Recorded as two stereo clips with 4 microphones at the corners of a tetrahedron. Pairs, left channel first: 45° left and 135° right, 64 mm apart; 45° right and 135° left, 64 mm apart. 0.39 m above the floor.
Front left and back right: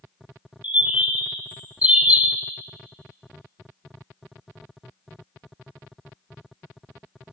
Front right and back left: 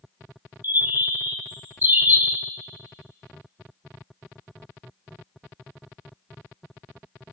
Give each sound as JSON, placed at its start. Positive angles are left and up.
{"t": 0.6, "sound": "a bird", "azimuth_deg": 170, "distance_m": 0.9}